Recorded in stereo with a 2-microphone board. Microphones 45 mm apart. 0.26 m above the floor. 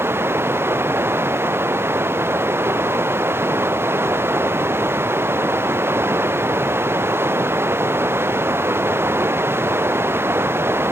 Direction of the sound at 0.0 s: 60° right (ahead or behind).